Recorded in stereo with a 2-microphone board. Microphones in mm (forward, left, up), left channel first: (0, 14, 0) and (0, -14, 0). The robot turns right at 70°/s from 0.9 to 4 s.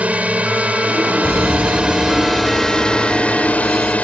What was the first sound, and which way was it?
A drone, 105° right.